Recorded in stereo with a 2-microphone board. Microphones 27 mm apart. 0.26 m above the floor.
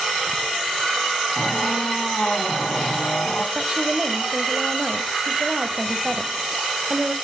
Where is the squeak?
40° left (ahead or behind), 3 m.